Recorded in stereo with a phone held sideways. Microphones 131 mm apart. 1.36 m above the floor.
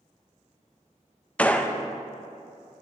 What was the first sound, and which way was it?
A gunshot, 10° left (ahead or behind).